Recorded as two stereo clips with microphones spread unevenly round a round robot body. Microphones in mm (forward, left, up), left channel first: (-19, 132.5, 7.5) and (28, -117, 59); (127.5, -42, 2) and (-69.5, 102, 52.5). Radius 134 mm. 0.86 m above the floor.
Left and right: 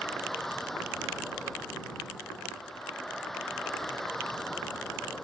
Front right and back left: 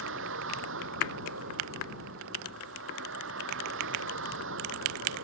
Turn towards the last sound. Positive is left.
turn(degrees=-170)